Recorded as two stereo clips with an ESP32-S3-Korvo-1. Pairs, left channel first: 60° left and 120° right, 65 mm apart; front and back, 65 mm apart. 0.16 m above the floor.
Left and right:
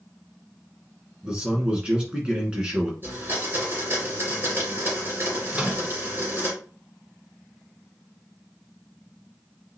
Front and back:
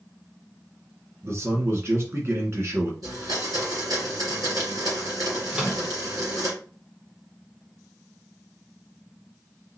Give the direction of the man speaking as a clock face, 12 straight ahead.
6 o'clock.